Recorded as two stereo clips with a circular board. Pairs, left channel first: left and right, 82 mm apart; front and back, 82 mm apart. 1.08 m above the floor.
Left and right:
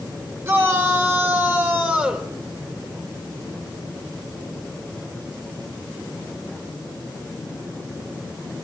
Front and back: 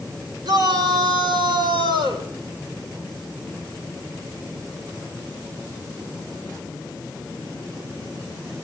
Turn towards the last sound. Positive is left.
turn(degrees=-165)